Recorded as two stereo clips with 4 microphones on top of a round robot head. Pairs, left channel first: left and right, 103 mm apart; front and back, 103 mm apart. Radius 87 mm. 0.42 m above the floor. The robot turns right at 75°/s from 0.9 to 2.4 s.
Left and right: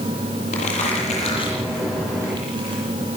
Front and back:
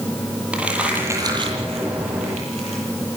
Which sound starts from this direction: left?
Crumpling, at 0.5 s.